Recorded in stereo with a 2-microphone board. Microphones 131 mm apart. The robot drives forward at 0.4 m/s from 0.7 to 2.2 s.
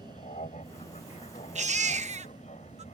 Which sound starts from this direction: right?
A baby crying, at 1.6 s.